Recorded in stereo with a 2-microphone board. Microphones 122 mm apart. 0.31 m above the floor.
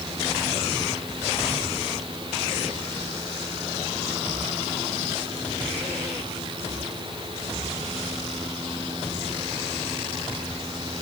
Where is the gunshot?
I don't hear a gunshot.